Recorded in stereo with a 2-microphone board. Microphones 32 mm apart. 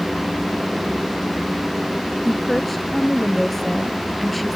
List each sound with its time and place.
2.2 s a woman speaking: 5° left (ahead or behind)